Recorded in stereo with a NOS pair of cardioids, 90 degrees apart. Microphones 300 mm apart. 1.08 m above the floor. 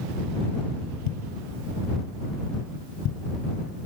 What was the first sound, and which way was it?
A thud, 65° left.